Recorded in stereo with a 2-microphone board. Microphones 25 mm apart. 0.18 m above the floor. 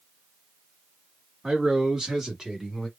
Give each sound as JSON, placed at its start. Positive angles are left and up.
{"t": 1.4, "sound": "a man speaking", "side_deg": -30, "distance_m": 1.5}